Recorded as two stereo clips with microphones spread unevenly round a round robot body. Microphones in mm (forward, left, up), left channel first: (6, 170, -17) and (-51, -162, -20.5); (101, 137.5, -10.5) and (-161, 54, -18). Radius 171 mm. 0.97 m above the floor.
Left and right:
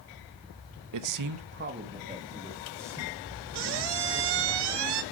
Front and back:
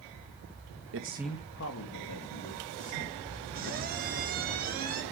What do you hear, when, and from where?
0.9 s a man speaking: 125° right, 0.6 m; by 4.5 s 10° right, 5 m
3.5 s a squeak: 100° right, 0.7 m